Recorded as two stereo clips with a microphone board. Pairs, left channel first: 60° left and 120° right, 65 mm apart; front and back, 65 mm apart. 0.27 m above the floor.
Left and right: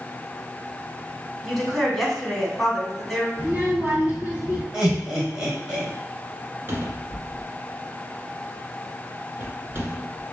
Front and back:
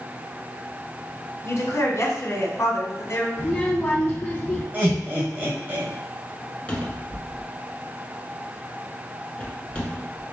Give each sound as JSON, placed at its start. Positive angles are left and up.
{"t": 1.4, "sound": "a woman speaking", "azimuth_deg": -30, "distance_m": 1.6}
{"t": 3.4, "sound": "a child speaking", "azimuth_deg": -65, "distance_m": 1.9}
{"t": 4.7, "sound": "laughter", "azimuth_deg": 180, "distance_m": 1.1}
{"t": 6.7, "sound": "a cupboard door", "azimuth_deg": -70, "distance_m": 1.2}